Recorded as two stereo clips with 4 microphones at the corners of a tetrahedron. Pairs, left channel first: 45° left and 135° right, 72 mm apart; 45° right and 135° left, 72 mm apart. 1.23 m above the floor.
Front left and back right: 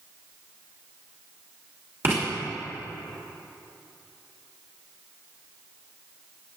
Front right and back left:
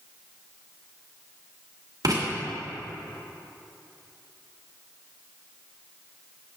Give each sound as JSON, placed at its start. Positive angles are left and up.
{"t": 2.0, "sound": "writing", "azimuth_deg": 170, "distance_m": 2.5}